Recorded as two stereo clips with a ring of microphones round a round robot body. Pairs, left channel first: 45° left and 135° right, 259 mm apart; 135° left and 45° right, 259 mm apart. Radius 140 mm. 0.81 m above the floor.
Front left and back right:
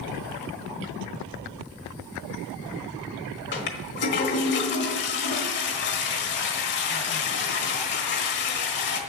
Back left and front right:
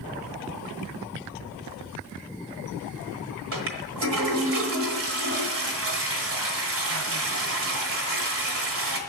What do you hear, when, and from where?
3.5 s a toilet flushing: 5° right, 1.3 m